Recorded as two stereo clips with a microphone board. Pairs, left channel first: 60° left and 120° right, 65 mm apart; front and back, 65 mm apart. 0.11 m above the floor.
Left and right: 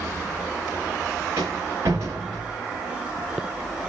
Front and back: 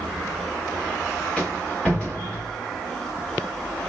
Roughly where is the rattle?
Right.